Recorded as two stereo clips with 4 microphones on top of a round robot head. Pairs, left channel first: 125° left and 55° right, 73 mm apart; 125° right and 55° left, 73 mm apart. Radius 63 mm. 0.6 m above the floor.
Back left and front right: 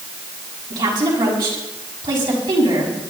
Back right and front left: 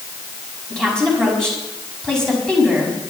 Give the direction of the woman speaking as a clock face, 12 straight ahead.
1 o'clock.